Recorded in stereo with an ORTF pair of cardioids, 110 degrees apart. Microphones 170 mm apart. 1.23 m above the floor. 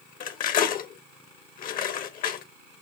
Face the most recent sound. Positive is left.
turn(degrees=60)